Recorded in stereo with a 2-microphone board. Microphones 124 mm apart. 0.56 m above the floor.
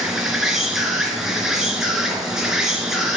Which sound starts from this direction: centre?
An insect, at 0.0 s.